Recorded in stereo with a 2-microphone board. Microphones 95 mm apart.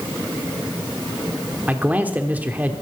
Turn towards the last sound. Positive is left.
turn(degrees=-15)  # may be behind; listen again after turning